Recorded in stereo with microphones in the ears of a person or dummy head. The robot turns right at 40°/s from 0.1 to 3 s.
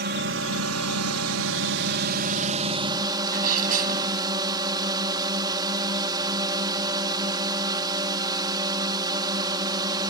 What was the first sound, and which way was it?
A drone, 135° right.